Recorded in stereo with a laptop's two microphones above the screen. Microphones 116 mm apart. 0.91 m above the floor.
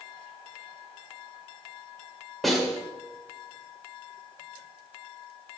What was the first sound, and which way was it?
A snare drum, centre (ahead or behind).